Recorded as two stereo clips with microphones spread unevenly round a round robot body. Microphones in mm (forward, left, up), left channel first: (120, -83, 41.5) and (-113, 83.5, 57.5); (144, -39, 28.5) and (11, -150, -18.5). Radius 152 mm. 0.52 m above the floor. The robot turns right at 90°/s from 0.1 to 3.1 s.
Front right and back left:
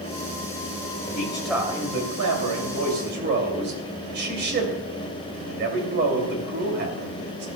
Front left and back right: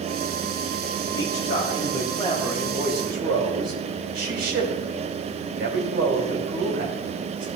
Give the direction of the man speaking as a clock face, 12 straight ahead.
11 o'clock.